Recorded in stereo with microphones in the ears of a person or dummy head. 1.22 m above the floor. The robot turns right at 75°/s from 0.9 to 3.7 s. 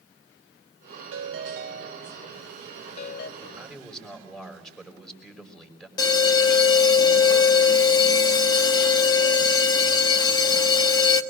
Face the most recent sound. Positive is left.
turn(degrees=25)  # may be behind; listen again after turning